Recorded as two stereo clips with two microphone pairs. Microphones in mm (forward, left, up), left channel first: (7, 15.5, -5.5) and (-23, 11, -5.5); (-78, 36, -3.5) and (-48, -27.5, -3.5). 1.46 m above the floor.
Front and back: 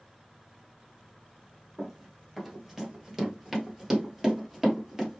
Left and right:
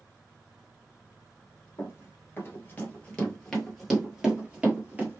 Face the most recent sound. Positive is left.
turn(degrees=-100)